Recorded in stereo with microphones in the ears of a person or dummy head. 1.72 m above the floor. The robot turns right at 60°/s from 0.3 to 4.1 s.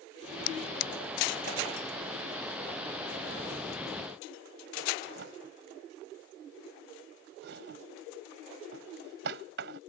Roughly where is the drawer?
Left.